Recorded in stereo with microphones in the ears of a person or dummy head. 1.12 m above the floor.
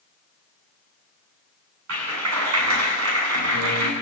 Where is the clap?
80° right, 7.5 m.